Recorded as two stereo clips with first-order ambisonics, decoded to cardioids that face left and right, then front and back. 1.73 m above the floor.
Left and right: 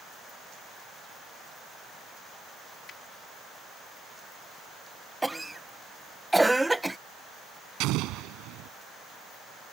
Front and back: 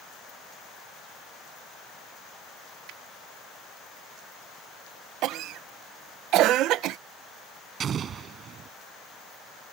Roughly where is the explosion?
Behind right.